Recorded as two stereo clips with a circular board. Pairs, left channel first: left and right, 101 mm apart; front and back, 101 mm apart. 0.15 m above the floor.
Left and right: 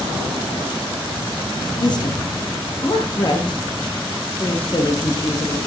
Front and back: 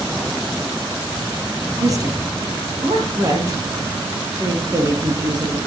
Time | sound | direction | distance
1.8 | a woman speaking | 130° left | 4 m